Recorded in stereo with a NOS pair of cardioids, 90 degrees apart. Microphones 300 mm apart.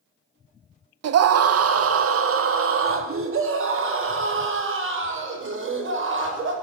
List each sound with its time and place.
1.0 s a scream: 60° right, 1.4 m; by 6.5 s 40° right, 7.5 m